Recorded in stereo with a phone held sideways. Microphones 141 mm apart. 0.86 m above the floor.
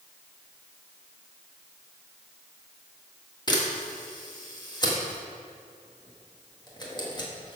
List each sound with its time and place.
3.5 s a camera shutter: 30° left (ahead or behind), 1.6 m